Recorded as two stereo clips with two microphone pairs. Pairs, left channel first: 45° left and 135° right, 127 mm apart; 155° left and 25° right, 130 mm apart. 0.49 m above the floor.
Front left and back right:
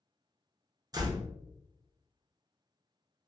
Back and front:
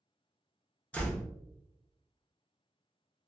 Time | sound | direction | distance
0.9 | a door slam | 135° right | 0.5 m